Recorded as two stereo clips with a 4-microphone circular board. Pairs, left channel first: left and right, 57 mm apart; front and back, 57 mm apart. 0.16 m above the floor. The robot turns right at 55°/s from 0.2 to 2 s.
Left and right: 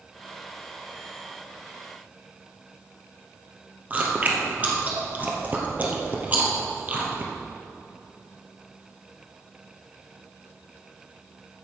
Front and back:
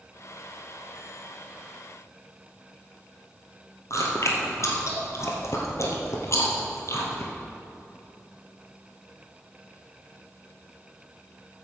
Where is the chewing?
30° right, 1.9 m.